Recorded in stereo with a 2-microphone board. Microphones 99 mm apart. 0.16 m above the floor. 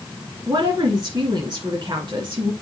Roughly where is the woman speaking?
Right.